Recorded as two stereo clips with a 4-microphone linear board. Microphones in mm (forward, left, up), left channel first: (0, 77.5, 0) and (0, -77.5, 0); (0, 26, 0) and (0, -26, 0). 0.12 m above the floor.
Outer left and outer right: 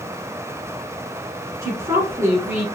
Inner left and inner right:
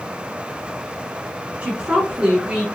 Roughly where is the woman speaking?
Right.